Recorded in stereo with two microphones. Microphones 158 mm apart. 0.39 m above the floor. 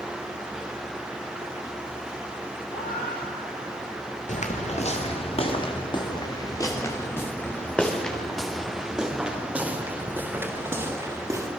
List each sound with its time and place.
2.7 s a cat meowing: 70° left (ahead or behind), 5.5 m; by 4.2 s 75° left (ahead or behind), 6.5 m
4.3 s footsteps: 50° left (ahead or behind), 3 m; by 11.5 s 20° right (ahead or behind), 5 m